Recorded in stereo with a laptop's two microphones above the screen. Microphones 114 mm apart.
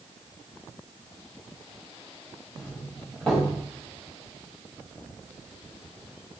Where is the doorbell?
5° left (ahead or behind), 6 m.